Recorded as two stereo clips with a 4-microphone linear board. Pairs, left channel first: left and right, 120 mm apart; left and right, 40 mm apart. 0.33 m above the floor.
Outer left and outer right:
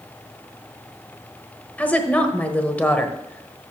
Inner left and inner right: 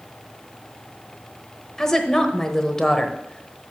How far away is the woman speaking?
About 1.0 m.